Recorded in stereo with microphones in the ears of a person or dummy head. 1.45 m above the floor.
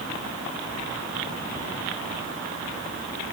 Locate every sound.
Only background noise.